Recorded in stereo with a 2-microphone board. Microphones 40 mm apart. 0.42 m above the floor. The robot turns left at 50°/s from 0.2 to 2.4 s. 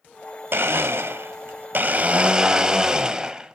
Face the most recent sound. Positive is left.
turn(degrees=-160)